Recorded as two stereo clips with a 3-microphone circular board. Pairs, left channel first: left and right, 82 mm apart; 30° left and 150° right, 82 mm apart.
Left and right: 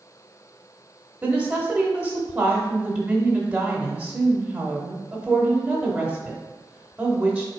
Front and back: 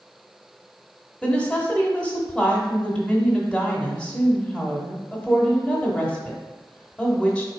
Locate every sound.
1.2 s a woman speaking: 40° right, 0.9 m